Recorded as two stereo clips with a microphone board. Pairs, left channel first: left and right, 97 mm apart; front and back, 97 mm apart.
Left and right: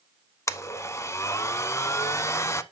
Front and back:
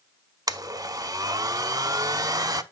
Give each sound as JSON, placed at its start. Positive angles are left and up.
{"t": 0.5, "sound": "a blender", "azimuth_deg": 140, "distance_m": 0.6}